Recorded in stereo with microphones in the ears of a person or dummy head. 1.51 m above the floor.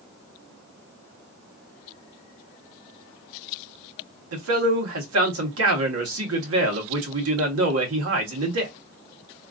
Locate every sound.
4.3 s a man speaking: 85° right, 1.5 m